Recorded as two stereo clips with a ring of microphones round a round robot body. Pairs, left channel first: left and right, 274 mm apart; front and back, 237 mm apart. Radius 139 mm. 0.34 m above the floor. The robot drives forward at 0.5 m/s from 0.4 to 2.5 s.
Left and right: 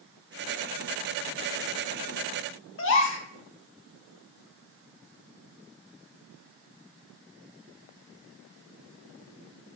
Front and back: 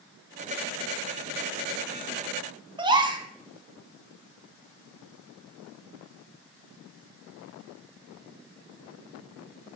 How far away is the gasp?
About 0.9 m.